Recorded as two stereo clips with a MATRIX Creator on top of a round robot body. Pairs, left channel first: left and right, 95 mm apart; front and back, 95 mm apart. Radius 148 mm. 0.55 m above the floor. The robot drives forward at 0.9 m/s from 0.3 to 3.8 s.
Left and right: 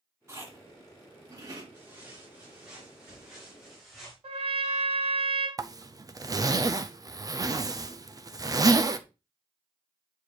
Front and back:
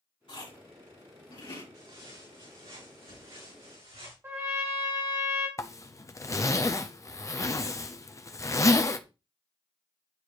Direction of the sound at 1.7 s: 155° right.